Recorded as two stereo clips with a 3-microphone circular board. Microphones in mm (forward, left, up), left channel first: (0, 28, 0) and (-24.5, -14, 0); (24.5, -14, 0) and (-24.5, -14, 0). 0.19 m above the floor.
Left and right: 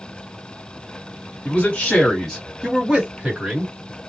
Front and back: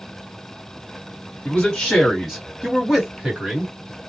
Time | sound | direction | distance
1.4 | a man speaking | 55° left | 1.7 m